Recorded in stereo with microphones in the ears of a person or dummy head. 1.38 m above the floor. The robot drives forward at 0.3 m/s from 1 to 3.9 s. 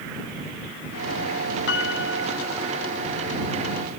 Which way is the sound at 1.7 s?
80° left.